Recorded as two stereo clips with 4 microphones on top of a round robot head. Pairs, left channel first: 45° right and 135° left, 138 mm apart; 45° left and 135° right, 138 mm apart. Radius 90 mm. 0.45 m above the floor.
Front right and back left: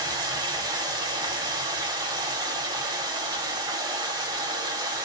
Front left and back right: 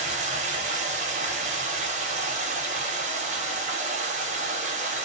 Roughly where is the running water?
Behind.